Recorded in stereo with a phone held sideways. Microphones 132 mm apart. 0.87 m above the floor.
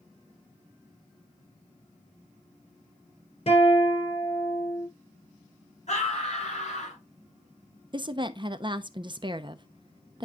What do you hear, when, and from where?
3.5 s a guitar: 50° left (ahead or behind), 3 m
5.9 s a scream: 60° left (ahead or behind), 5.5 m
7.9 s a woman speaking: 35° right (ahead or behind), 0.7 m